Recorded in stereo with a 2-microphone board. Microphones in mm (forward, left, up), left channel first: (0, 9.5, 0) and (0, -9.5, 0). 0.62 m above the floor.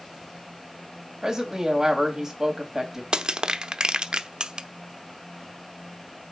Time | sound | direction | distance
1.2 | a woman speaking | 25° right (ahead or behind) | 3.5 m
3.1 | crushing | 55° right (ahead or behind) | 0.7 m